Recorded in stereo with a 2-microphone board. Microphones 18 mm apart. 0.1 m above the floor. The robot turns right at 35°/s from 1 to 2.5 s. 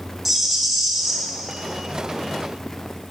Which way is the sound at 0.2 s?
5° right (ahead or behind).